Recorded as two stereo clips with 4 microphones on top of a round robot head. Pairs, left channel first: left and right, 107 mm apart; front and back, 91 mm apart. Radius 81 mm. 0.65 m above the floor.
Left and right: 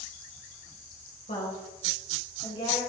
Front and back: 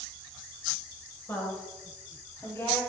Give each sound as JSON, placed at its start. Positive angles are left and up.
{"t": 1.3, "sound": "a woman speaking", "azimuth_deg": 60, "distance_m": 4.0}